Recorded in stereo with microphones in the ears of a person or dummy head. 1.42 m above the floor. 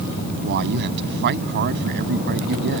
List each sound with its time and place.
0.4 s a man speaking: 55° right (ahead or behind)